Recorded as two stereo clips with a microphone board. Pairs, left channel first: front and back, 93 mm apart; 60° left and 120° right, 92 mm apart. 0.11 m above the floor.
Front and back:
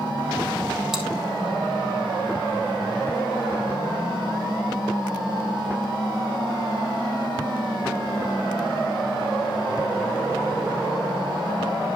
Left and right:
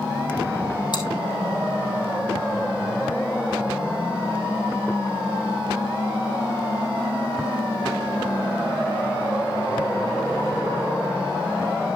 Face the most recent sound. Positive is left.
turn(degrees=95)